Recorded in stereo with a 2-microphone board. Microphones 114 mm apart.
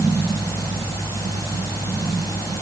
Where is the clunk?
No clunk in this recording.